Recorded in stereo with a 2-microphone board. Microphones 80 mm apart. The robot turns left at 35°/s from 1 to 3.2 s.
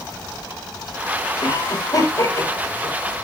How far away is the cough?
About 5 m.